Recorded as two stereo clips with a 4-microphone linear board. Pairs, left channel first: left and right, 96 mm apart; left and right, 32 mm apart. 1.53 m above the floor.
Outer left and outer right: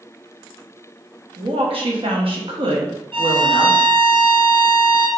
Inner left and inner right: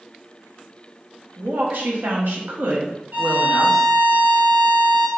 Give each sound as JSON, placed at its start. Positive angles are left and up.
{"t": 1.4, "sound": "a woman speaking", "side_deg": -70, "distance_m": 1.2}
{"t": 3.1, "sound": "a violin", "side_deg": -70, "distance_m": 0.9}